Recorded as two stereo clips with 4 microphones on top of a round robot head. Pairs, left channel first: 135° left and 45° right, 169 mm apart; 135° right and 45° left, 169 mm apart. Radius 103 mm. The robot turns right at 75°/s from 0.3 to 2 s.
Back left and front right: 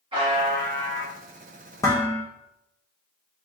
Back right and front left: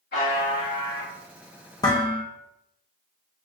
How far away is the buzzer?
About 1.5 m.